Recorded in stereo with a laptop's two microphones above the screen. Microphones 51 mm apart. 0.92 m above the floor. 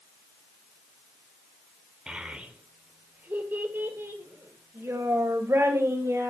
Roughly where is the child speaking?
Centre.